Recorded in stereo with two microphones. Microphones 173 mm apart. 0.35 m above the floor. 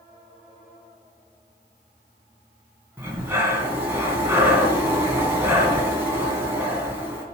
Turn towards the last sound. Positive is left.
turn(degrees=-10)  # may be behind; listen again after turning